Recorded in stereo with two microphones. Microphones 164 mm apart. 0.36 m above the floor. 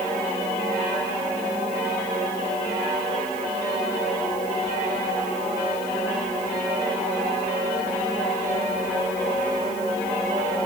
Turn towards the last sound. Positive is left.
No sound to turn to.